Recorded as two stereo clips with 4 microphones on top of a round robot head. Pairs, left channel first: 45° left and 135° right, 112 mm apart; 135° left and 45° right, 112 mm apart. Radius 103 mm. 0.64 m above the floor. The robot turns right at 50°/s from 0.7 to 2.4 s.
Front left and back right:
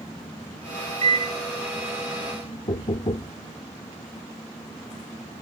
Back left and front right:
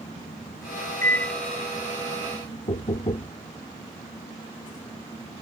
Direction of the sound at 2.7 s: 90° left.